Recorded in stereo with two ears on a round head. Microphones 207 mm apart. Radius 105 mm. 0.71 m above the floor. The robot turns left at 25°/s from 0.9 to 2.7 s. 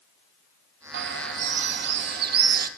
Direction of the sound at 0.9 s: 80° right.